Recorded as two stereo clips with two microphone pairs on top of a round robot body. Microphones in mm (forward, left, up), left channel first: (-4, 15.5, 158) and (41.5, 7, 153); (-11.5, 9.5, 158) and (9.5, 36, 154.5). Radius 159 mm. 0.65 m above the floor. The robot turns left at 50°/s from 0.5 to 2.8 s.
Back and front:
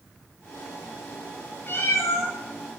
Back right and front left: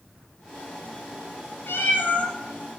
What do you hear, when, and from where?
1.7 s a cat meowing: 150° right, 3 m; by 2.3 s straight behind, 3 m